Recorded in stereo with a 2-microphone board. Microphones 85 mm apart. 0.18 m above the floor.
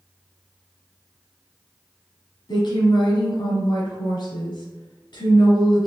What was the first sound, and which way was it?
A woman speaking, 60° left (ahead or behind).